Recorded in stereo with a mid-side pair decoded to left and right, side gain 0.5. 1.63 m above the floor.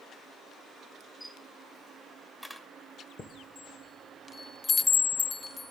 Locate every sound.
1.2 s a camera shutter: 5° left, 2 m
3.2 s a chime: 30° left, 1.1 m